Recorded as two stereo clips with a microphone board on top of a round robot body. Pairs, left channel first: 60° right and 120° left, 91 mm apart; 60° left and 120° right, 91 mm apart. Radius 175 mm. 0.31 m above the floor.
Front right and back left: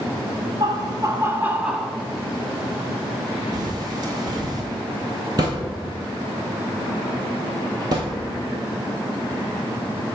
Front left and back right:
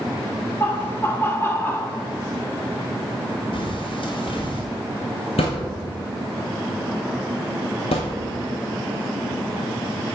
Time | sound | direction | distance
0.6 | laughter | 120° left | 1.2 m
3.5 | a bird | 80° left | 1.3 m
5.4 | a thud | 70° left | 0.6 m